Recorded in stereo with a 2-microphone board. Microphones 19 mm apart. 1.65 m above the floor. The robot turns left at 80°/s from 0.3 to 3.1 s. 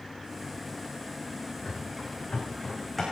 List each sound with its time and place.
1.6 s running footsteps: 75° left (ahead or behind), 8 m; by 3.0 s 5° right (ahead or behind), 8.5 m